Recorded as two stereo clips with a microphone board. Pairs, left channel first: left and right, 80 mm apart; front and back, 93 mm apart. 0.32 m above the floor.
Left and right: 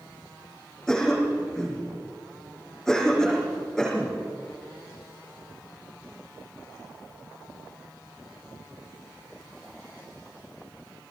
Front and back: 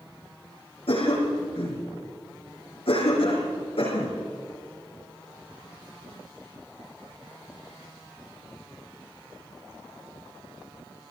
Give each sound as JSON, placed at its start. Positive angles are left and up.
{"t": 0.9, "sound": "a cough", "azimuth_deg": 10, "distance_m": 7.0}